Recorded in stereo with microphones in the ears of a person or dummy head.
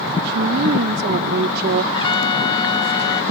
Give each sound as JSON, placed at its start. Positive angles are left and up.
{"t": 0.2, "sound": "a woman speaking", "side_deg": -60}
{"t": 1.9, "sound": "a trumpet", "side_deg": 30}